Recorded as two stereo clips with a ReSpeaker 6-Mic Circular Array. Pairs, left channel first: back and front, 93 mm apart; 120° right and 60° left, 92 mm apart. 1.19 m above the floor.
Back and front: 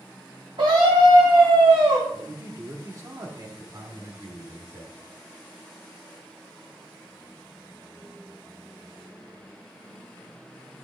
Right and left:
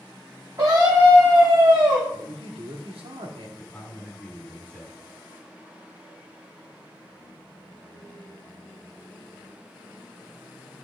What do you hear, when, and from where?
0.6 s a scream: 10° left, 3.5 m
2.1 s a man speaking: 55° left, 2.5 m
3.6 s a man speaking: 50° right, 4 m